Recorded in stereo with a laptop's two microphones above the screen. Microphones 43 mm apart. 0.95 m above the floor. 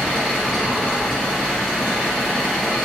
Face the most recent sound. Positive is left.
turn(degrees=0)  # may be behind; listen again after turning